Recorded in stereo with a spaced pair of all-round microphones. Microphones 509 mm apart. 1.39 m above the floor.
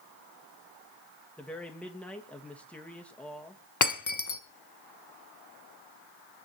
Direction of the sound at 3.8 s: 35° left (ahead or behind).